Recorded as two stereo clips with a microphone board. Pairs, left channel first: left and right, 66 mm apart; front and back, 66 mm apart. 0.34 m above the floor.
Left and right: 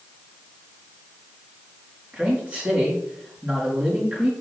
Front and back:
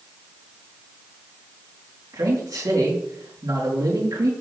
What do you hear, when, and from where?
2.1 s a man speaking: 155° right, 3.5 m